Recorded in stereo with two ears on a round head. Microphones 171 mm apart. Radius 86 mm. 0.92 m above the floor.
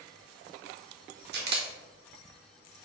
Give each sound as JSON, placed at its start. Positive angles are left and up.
{"t": 1.3, "sound": "a camera shutter", "side_deg": -55, "distance_m": 1.7}